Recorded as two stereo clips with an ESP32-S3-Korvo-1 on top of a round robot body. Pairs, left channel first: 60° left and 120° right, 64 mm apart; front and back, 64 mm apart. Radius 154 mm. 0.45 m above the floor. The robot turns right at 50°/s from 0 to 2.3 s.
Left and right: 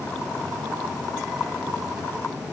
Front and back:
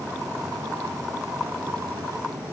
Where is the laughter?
No laughter in this recording.